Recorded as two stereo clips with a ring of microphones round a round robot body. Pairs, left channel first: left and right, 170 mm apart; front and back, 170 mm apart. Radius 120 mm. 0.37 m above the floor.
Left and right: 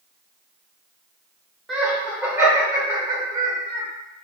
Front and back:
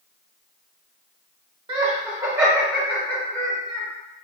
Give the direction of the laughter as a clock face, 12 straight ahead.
6 o'clock.